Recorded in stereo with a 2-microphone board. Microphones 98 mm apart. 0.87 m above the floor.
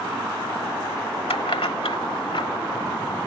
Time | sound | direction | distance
1.3 | keys jangling | 80° left | ?